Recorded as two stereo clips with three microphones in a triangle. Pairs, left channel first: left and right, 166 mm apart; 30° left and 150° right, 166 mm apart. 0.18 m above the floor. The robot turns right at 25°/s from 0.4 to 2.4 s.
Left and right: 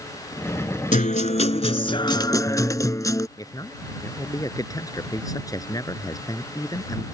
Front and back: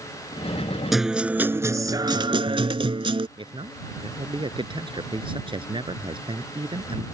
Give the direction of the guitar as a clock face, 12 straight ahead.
8 o'clock.